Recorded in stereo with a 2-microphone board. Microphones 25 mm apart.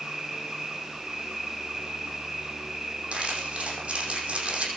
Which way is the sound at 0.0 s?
25° right (ahead or behind).